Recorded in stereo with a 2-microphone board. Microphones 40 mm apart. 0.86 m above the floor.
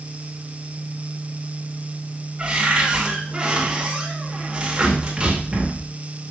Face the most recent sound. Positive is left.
turn(degrees=-25)  # may be behind; listen again after turning